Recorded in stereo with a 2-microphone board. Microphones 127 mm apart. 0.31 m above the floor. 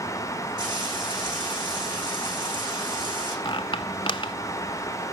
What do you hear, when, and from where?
0.6 s frying: 35° right (ahead or behind), 8 m
3.5 s a squeak: 40° left (ahead or behind), 0.9 m